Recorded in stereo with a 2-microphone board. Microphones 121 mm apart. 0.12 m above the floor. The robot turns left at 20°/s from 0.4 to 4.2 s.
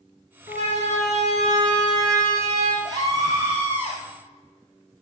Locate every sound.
0.5 s a siren: 75° right (ahead or behind), 6.5 m; by 2.8 s 60° right (ahead or behind), 7.5 m
2.9 s a scream: 35° right (ahead or behind), 3 m; by 4.0 s 15° right (ahead or behind), 3 m